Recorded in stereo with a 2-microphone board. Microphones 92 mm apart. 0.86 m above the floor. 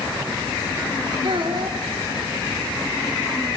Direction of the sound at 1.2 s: 60° right (ahead or behind).